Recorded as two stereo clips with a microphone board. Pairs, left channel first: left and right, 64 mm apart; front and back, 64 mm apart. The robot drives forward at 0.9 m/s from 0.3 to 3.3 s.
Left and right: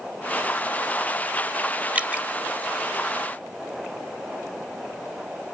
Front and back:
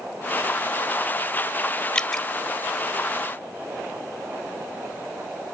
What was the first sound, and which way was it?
Dripping, 55° right.